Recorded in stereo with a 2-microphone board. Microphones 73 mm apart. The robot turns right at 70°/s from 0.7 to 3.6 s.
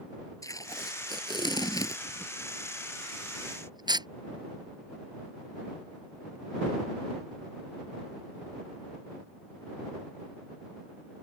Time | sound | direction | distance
0.4 | tape being pulled | 50° left (ahead or behind) | ?